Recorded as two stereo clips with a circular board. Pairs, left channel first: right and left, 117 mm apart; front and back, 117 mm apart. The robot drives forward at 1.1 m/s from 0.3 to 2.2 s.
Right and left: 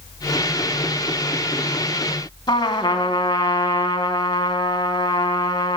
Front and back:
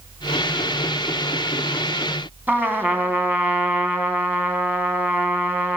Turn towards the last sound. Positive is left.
turn(degrees=-115)